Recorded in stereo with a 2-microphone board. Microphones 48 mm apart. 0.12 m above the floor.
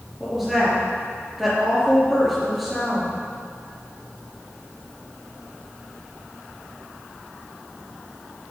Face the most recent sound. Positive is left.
turn(degrees=-5)  # may be behind; listen again after turning